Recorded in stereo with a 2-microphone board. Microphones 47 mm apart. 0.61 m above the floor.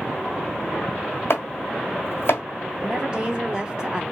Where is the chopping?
65° left (ahead or behind), 1.0 m.